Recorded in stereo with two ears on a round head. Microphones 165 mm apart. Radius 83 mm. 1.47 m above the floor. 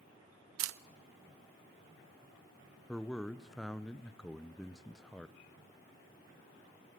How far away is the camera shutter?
About 0.5 m.